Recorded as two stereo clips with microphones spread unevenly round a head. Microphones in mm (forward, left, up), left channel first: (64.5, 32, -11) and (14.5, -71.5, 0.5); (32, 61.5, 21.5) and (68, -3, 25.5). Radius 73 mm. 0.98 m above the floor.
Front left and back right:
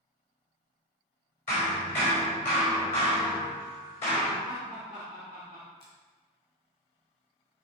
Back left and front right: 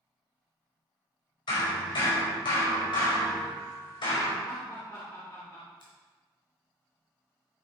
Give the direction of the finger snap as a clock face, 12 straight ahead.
8 o'clock.